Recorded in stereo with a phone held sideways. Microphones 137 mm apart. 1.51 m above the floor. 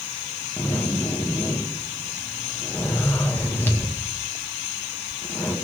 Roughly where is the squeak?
No squeak in this recording.